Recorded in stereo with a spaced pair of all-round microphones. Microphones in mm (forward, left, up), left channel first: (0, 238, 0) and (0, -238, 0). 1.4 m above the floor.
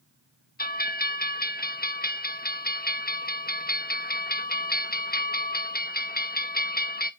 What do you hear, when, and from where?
0.6 s a bell: 20° left (ahead or behind), 0.8 m